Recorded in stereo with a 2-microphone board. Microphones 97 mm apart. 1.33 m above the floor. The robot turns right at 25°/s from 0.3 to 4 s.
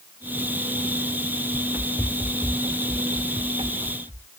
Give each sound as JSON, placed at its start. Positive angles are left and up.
{"t": 1.5, "sound": "running footsteps", "side_deg": -20}